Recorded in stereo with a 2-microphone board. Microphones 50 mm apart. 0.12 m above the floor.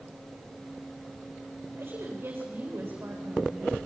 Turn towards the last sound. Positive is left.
turn(degrees=-50)  # may be behind; listen again after turning